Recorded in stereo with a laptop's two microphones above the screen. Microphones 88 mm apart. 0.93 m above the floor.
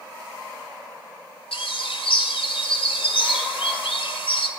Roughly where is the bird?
Left.